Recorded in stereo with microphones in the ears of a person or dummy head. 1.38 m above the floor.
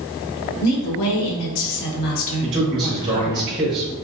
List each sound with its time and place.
0.6 s a woman speaking: 85° left, 1.5 m; by 3.4 s 15° left (ahead or behind), 1.5 m
2.4 s a man speaking: 30° right (ahead or behind), 1.4 m